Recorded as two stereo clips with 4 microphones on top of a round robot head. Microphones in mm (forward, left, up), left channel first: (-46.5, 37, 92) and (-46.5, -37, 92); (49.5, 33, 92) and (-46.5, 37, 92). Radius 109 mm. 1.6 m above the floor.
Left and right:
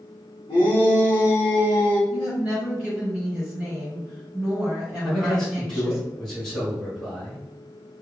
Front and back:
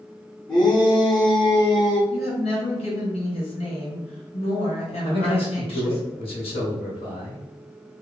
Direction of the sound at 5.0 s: 5° left.